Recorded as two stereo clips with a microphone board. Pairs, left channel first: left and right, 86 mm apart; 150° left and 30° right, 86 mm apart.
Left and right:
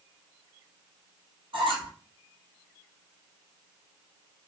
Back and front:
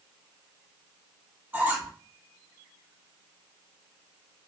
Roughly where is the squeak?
Right.